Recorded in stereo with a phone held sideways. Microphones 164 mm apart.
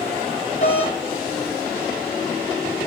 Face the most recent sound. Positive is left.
turn(degrees=45)  # may be behind; listen again after turning